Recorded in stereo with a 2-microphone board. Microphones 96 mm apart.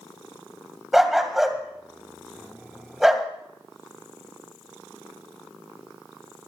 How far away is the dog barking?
About 1.9 m.